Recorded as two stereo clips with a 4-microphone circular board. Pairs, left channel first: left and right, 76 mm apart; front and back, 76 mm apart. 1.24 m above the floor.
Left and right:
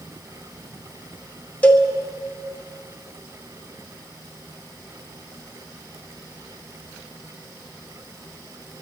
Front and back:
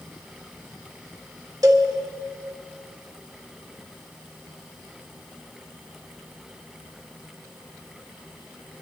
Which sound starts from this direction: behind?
A cowbell, at 1.6 s.